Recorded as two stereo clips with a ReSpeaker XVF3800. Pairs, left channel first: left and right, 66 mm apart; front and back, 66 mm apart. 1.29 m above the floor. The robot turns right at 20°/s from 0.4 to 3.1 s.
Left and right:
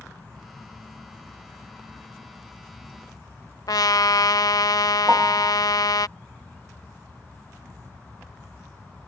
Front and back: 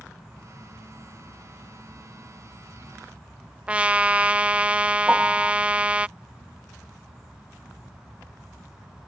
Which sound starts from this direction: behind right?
A piano, at 5.1 s.